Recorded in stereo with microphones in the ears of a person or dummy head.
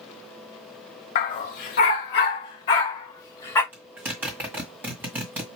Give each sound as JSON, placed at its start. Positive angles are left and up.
{"t": 1.1, "sound": "a dog barking", "side_deg": 50, "distance_m": 2.0}
{"t": 3.7, "sound": "a zipper", "side_deg": -5, "distance_m": 1.9}